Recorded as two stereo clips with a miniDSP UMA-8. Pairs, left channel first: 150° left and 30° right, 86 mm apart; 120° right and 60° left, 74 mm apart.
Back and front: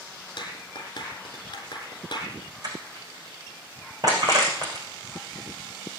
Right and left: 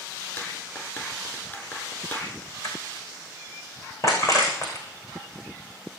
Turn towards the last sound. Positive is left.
turn(degrees=-75)